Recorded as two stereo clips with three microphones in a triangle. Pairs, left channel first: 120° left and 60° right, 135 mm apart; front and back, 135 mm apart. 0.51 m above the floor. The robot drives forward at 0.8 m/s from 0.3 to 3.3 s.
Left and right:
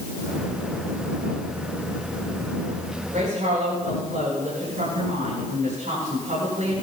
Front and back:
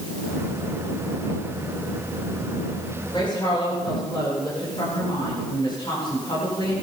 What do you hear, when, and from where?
3.1 s a woman speaking: 50° right, 9.5 m